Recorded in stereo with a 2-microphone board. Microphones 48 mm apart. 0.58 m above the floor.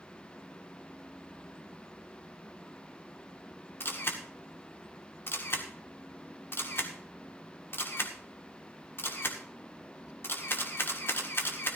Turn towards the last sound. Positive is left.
turn(degrees=55)  # may be behind; listen again after turning